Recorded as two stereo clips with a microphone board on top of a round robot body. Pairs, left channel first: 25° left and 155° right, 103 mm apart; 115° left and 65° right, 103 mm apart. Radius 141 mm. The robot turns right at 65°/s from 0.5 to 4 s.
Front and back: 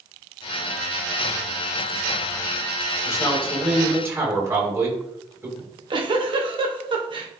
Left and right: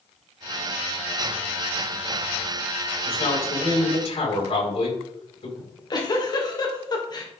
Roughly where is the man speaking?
Left.